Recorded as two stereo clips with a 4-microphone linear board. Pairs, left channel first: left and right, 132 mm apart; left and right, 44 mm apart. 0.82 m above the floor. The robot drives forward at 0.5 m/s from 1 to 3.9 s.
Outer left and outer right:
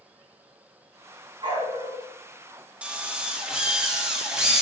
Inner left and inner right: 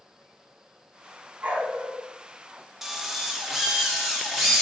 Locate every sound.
1.4 s a dog barking: 40° right (ahead or behind), 2.5 m; by 2.0 s 35° right (ahead or behind), 3 m
2.8 s a drill: 10° right (ahead or behind), 1.1 m; by 4.6 s 5° right (ahead or behind), 1.5 m